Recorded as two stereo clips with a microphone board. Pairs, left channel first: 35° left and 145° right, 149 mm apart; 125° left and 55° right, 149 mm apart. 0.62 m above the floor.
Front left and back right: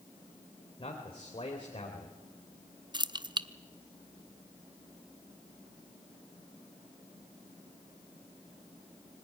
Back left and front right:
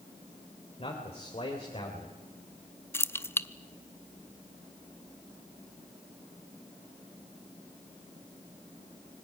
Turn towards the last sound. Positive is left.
turn(degrees=-175)